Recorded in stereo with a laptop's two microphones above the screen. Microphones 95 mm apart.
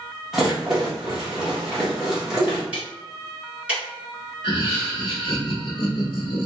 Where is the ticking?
10° right (ahead or behind), 1.8 m.